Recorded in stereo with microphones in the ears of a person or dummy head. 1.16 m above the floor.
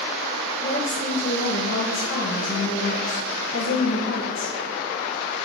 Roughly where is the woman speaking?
Left.